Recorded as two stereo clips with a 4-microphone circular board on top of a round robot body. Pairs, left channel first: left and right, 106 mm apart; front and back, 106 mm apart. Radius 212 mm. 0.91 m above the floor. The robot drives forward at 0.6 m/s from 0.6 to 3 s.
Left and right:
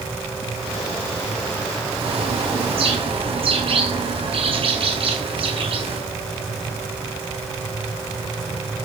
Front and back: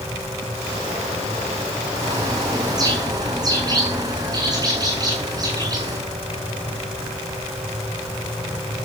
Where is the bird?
125° right, 9.5 m.